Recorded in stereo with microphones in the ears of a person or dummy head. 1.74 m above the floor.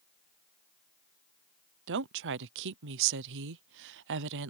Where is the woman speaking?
65° right (ahead or behind).